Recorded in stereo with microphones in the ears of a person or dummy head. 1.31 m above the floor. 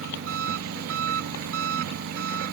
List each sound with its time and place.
0.0 s an engine running: 85° right